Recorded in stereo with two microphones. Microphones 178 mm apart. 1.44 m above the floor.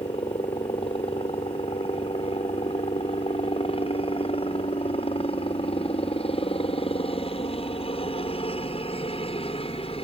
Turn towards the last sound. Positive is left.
turn(degrees=30)  # may be behind; listen again after turning